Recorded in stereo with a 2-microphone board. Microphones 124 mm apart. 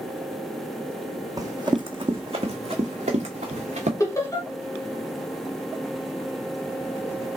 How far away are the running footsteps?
About 1.0 m.